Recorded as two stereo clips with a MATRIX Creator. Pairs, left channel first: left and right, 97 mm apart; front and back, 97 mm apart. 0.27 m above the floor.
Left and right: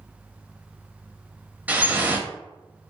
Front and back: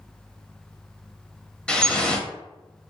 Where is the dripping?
60° right, 0.7 m.